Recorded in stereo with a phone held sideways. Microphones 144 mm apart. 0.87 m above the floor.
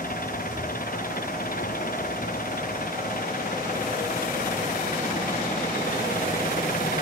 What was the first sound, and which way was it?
An engine running, 70° left (ahead or behind).